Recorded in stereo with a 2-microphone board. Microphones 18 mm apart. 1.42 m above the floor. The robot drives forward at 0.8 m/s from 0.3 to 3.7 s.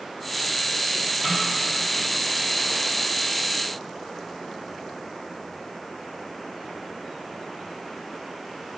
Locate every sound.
1.2 s a snare drum: 10° right (ahead or behind), 3.5 m